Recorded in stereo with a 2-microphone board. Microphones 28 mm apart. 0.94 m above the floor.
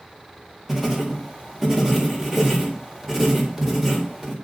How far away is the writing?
About 3.5 m.